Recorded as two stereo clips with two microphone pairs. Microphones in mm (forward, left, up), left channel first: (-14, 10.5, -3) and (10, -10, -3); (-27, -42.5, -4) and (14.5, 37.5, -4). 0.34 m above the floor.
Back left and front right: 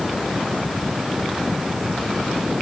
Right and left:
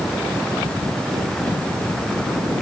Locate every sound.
Only background noise.